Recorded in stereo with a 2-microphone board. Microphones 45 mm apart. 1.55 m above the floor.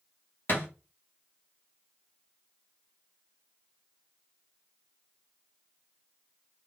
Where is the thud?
50° left (ahead or behind), 1.4 m.